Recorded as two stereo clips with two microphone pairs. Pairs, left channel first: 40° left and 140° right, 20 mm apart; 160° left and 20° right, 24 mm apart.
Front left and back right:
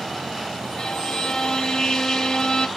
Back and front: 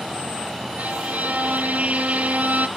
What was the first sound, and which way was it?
A violin, 15° right.